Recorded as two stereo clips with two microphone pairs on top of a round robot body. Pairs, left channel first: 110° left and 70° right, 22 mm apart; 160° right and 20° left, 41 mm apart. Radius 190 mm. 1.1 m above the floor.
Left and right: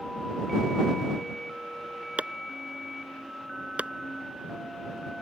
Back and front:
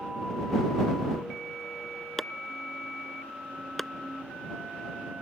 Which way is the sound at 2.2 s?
75° right.